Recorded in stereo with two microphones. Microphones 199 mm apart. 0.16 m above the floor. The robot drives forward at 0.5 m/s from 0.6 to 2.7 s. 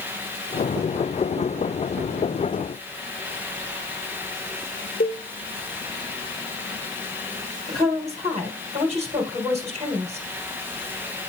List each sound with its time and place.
5.0 s a cowbell: 50° left (ahead or behind), 1.6 m
7.7 s a woman speaking: 35° right (ahead or behind), 3 m